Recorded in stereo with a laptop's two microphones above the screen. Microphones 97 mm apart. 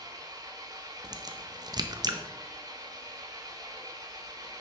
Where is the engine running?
40° right (ahead or behind), 1.0 m.